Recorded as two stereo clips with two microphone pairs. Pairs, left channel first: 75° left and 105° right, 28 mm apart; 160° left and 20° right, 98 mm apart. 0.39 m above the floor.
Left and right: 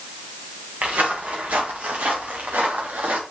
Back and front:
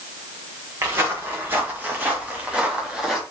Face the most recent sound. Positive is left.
turn(degrees=-105)